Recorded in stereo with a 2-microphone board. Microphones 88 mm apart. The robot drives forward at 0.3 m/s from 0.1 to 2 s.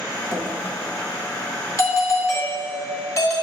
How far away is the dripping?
About 0.9 m.